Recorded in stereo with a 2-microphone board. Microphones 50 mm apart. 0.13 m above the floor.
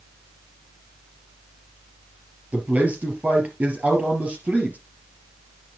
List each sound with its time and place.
2.5 s a man speaking: 30° right (ahead or behind), 3.5 m